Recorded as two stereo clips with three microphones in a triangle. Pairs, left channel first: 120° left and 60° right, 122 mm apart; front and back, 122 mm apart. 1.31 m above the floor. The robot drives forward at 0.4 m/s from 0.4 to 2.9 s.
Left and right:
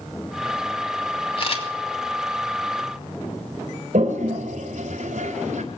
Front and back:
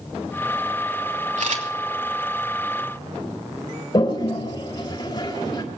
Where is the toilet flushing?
50° right, 3.5 m.